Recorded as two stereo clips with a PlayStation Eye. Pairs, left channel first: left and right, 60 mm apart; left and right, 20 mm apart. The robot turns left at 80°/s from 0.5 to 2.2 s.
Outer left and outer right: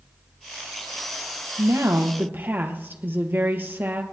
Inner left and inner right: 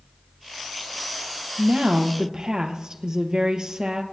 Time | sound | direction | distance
1.6 | a woman speaking | 90° right | 2.5 m